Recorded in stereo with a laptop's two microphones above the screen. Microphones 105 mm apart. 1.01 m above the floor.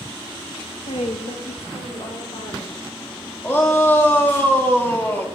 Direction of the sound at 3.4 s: 20° left (ahead or behind).